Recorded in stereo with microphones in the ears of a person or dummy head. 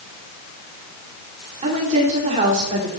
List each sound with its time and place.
1.6 s a woman speaking: 35° right (ahead or behind), 5 m